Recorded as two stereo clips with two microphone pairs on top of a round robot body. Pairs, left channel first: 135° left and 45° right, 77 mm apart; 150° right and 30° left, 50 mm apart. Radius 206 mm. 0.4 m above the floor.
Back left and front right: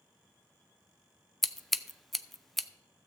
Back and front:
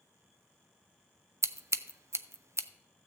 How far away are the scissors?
About 0.5 m.